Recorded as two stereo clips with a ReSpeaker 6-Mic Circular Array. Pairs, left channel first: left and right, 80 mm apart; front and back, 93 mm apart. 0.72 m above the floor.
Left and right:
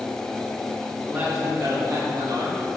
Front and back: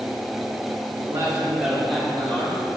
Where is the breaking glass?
No breaking glass in this recording.